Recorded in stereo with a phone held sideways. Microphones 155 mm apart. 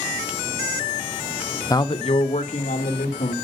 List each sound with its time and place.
1.7 s a man speaking: 20° left (ahead or behind), 0.5 m; by 3.3 s 55° left (ahead or behind), 2.5 m